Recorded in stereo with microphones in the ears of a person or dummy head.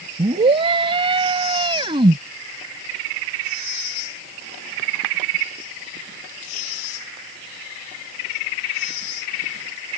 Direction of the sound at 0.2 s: 30° right (ahead or behind).